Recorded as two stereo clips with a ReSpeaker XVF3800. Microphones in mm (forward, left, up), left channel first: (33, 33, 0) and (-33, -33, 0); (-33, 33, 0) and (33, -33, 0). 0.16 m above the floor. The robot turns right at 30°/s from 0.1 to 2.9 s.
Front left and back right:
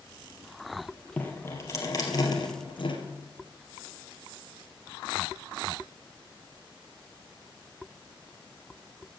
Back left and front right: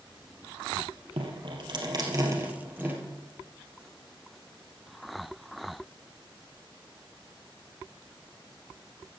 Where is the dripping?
25° right, 2.0 m; by 3.0 s 25° left, 2.0 m.